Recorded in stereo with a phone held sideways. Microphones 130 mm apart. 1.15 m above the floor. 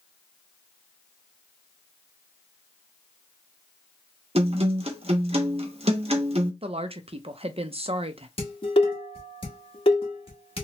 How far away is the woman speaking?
About 0.5 m.